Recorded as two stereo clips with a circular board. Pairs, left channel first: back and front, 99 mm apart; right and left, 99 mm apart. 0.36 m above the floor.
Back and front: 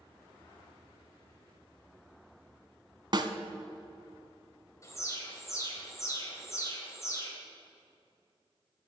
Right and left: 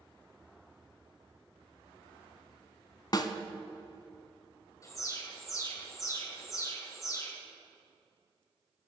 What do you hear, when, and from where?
3.1 s a snare drum: 45° right, 0.7 m
4.8 s an alarm: 135° right, 1.9 m